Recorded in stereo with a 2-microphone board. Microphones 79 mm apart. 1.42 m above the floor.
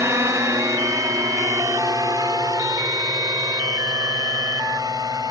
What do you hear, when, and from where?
0.0 s a drone: 35° right (ahead or behind); by 5.3 s 50° right (ahead or behind)